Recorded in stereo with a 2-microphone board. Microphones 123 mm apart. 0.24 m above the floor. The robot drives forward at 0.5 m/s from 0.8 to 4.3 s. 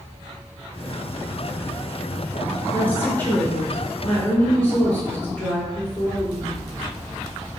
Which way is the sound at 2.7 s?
15° left (ahead or behind).